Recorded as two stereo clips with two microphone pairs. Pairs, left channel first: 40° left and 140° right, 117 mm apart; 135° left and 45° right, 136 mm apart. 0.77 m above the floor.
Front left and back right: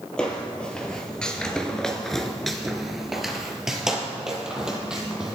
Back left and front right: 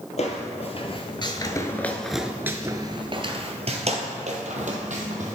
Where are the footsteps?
115° left, 1.3 m; by 5.3 s 60° right, 1.9 m.